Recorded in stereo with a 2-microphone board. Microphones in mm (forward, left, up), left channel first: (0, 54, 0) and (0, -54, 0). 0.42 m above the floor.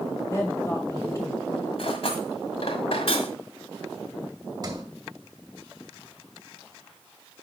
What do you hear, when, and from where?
0.3 s a woman speaking: 25° left (ahead or behind), 2 m
1.8 s cutlery clinking: 65° left (ahead or behind), 1.5 m
4.6 s a sliding door: 35° right (ahead or behind), 1.7 m